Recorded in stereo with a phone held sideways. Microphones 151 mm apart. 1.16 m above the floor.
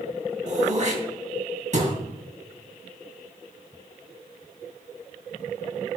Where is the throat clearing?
50° right (ahead or behind), 2.5 m.